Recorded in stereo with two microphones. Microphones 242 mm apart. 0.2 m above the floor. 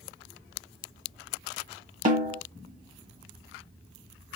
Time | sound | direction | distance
2.0 | a snare drum | 30° right (ahead or behind) | 0.8 m